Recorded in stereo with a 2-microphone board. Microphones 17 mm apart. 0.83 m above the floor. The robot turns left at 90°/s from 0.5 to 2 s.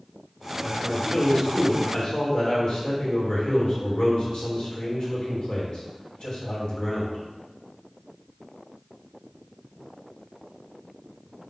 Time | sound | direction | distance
0.6 | a man speaking | 170° right | 2.5 m